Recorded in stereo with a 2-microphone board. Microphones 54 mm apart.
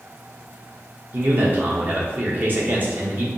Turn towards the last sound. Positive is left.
turn(degrees=-40)  # may be behind; listen again after turning